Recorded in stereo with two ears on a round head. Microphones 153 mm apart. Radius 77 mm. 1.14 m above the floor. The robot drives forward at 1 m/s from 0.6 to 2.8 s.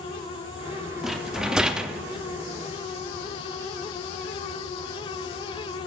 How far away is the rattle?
About 0.8 m.